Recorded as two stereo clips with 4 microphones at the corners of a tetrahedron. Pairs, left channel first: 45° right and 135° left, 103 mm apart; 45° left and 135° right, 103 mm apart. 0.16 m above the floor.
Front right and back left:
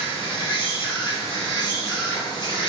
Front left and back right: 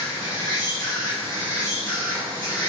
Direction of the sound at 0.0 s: 5° right.